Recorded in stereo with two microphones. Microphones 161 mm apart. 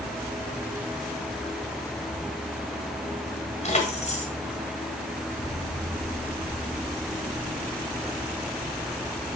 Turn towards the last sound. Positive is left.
turn(degrees=45)  # may be behind; listen again after turning